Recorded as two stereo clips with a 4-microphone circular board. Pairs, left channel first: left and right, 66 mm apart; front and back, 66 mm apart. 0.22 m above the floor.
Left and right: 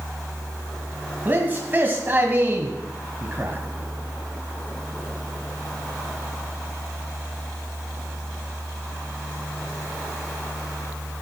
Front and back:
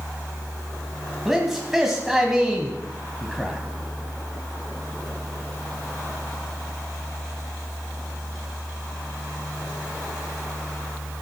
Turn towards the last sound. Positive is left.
turn(degrees=-100)